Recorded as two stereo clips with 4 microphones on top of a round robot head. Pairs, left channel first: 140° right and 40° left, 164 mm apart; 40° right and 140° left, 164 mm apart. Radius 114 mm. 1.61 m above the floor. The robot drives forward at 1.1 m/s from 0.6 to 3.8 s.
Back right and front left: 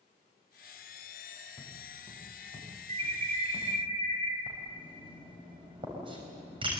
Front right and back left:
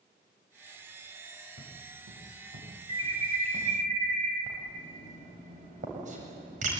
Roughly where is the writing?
Left.